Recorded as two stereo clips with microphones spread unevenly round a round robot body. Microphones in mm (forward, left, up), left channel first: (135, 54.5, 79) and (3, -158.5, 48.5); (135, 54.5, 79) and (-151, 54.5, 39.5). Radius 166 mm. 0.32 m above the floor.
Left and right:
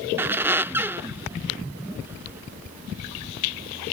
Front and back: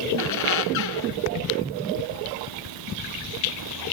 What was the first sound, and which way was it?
A squeak, 40° right.